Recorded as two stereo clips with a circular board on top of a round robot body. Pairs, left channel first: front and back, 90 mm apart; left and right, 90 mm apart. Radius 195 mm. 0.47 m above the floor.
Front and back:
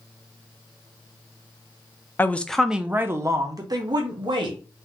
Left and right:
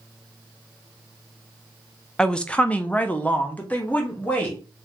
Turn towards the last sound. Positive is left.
turn(degrees=165)